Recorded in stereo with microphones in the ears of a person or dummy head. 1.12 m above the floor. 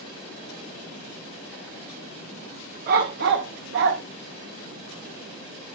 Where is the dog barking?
45° right (ahead or behind), 0.9 m; by 4.0 s 65° right (ahead or behind), 1.0 m.